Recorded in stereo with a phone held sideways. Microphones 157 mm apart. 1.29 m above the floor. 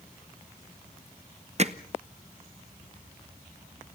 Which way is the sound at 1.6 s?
45° right (ahead or behind).